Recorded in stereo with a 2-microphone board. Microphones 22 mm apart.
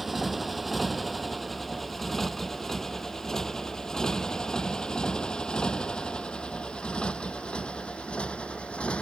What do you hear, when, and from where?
0.0 s a motorcycle: centre (ahead or behind); by 9.0 s 65° left (ahead or behind)